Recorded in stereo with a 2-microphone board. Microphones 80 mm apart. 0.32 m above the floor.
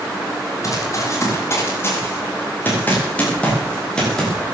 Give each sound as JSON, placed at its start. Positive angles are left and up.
{"t": 0.6, "sound": "running footsteps", "side_deg": 40, "distance_m": 8.5}